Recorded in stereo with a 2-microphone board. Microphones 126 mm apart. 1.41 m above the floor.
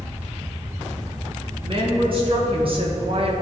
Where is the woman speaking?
45° right (ahead or behind), 2 m; by 3.3 s 50° right (ahead or behind), 1.0 m.